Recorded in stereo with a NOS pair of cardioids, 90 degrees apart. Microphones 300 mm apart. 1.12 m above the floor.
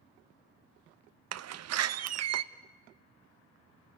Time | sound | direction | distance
1.3 | a door slam | 60° right | 0.9 m